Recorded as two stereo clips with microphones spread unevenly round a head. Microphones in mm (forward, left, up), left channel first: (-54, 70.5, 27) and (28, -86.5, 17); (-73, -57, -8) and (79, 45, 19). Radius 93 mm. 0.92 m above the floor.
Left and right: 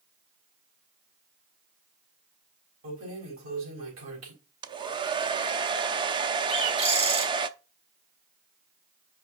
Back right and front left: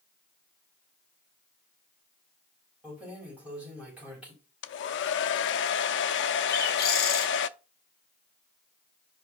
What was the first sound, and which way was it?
Keys jangling, 50° right.